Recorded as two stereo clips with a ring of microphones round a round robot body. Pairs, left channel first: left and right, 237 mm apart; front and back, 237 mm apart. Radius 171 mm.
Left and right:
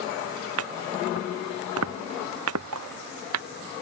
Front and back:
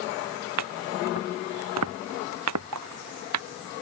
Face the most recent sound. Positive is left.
turn(degrees=-140)